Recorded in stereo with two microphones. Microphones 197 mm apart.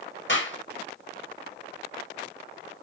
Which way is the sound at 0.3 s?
70° left (ahead or behind).